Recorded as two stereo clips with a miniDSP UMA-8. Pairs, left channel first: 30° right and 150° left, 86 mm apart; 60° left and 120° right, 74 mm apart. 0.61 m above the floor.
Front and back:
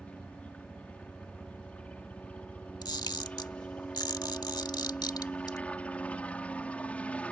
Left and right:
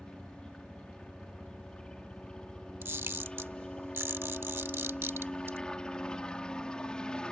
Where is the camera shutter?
65° right.